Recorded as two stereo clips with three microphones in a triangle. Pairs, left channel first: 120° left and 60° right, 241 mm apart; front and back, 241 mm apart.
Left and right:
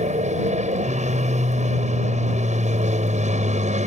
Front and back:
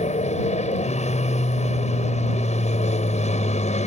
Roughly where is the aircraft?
Ahead right.